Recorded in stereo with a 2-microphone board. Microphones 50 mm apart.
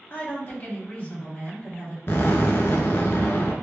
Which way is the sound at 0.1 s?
50° left (ahead or behind).